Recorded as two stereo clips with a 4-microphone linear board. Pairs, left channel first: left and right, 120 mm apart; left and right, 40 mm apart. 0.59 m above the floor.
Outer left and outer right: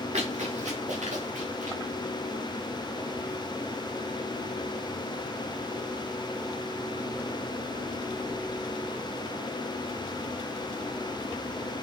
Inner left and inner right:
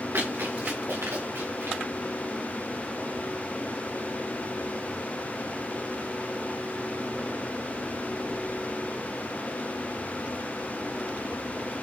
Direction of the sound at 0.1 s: 70° right (ahead or behind).